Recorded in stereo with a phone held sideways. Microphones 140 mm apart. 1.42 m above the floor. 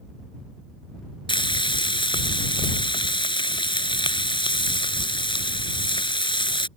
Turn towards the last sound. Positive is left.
turn(degrees=35)  # may be behind; listen again after turning